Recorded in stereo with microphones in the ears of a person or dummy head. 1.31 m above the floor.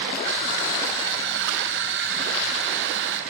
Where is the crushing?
65° right (ahead or behind), 4 m.